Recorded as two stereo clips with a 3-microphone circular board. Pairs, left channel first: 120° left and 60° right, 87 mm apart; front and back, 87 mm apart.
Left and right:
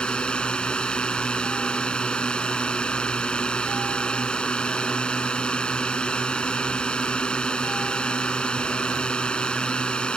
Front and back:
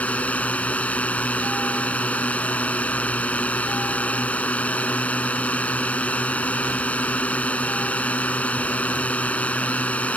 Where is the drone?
55° left.